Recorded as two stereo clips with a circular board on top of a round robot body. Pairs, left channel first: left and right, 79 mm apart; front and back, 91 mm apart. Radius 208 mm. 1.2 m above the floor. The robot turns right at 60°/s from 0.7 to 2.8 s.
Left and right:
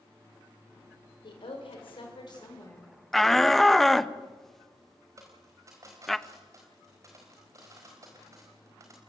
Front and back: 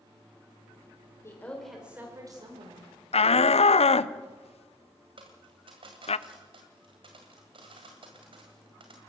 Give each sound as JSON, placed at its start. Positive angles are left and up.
{"t": 1.2, "sound": "a woman speaking", "azimuth_deg": 60, "distance_m": 4.5}
{"t": 3.1, "sound": "a shout", "azimuth_deg": 5, "distance_m": 0.8}
{"t": 5.2, "sound": "a dropped coin", "azimuth_deg": -145, "distance_m": 1.6}